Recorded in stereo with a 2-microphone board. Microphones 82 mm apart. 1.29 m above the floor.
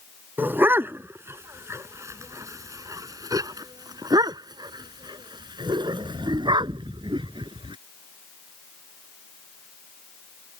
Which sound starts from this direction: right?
A dog barking, at 0.4 s.